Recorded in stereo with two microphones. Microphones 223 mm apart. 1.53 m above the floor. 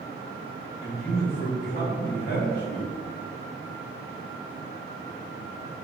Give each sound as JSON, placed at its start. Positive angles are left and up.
{"t": 0.8, "sound": "a man speaking", "side_deg": 45, "distance_m": 1.9}